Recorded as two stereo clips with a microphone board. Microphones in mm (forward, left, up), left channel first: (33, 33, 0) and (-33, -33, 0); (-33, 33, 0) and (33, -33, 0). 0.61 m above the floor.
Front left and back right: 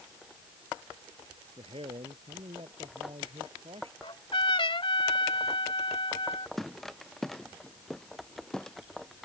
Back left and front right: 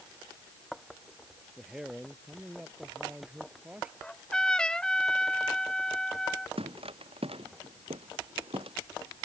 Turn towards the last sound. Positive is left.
turn(degrees=-40)